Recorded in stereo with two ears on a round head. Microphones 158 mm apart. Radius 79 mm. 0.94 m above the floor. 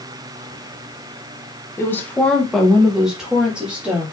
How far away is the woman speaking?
About 0.7 m.